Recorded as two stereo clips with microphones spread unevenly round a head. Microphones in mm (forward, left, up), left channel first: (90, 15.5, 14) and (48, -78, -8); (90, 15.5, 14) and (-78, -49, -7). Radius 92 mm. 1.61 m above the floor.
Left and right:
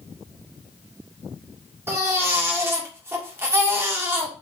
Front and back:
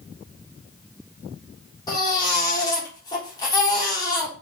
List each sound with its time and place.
1.9 s a baby crying: 45° right, 1.6 m